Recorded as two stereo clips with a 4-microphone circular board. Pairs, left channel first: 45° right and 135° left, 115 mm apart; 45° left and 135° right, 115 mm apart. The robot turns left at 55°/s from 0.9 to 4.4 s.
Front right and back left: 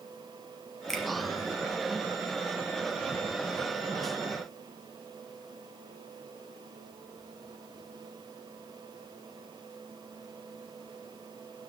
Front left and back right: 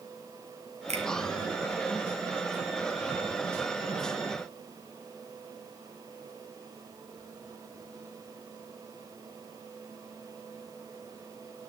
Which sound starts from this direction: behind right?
A finger snap, at 0.9 s.